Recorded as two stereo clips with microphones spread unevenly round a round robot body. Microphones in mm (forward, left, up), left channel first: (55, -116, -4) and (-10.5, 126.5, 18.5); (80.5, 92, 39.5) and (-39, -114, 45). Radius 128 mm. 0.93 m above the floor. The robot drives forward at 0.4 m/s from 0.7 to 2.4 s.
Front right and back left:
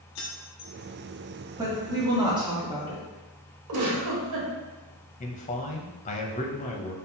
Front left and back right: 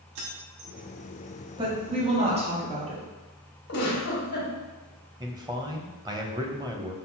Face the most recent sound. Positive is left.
turn(degrees=-55)